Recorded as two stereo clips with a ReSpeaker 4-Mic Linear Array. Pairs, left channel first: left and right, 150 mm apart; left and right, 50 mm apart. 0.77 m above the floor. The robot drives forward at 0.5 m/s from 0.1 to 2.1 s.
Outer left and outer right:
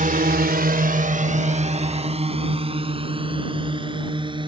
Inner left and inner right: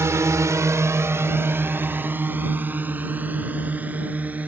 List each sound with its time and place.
0.0 s a drone: 55° right (ahead or behind); by 4.5 s 30° right (ahead or behind)